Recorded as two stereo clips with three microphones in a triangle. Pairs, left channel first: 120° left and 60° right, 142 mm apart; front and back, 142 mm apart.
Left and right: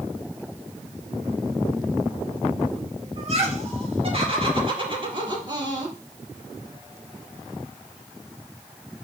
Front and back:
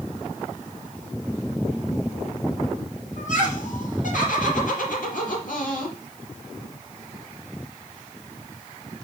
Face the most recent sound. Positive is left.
turn(degrees=0)